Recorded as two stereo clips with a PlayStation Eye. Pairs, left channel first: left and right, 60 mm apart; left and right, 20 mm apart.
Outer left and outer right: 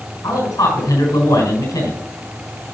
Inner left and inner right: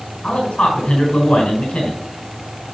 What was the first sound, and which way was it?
A man speaking, 85° left.